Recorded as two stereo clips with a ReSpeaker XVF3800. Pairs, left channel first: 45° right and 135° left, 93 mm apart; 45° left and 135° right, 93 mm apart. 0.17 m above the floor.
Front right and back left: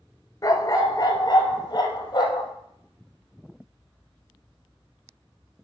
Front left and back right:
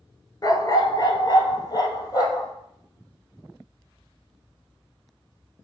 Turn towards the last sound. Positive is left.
turn(degrees=-5)